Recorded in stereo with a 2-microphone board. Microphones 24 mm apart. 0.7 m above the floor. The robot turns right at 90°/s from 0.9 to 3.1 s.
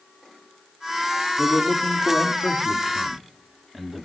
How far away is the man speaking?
About 1.5 m.